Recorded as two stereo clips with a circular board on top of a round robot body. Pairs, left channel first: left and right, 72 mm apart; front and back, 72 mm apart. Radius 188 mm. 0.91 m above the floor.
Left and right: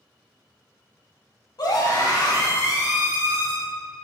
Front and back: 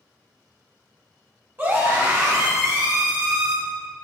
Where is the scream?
120° left, 2 m; by 3.5 s 140° left, 3 m.